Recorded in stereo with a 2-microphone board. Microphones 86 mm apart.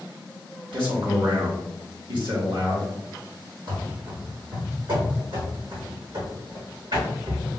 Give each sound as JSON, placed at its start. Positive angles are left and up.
{"t": 0.7, "sound": "a man speaking", "side_deg": -70, "distance_m": 1.7}
{"t": 3.7, "sound": "running footsteps", "side_deg": -65, "distance_m": 2.0}